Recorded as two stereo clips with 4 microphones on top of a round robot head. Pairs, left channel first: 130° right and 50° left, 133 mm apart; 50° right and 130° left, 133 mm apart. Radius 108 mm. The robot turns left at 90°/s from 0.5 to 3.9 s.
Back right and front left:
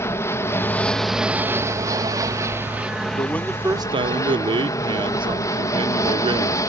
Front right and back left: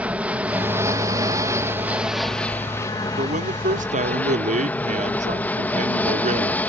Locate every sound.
0.0 s an aircraft: 165° right; by 6.7 s 115° right
3.2 s a man speaking: 170° left; by 6.6 s 105° left